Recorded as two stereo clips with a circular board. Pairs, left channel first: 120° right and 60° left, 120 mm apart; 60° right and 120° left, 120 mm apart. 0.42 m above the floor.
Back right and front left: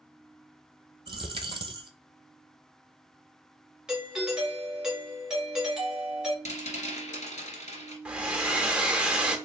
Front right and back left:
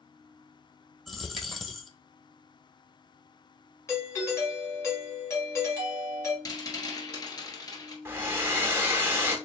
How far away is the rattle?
About 1.3 m.